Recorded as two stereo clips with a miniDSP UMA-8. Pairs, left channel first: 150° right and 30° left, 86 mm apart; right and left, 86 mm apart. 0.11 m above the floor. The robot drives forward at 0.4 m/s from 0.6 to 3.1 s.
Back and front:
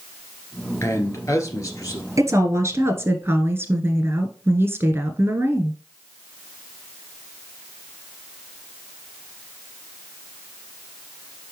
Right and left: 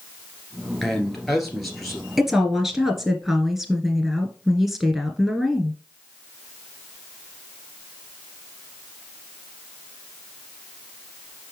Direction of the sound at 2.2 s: 5° left.